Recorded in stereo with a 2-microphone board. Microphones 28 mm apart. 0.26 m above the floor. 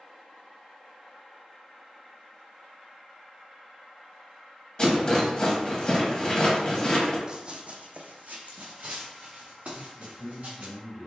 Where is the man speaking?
10° right (ahead or behind), 0.9 m.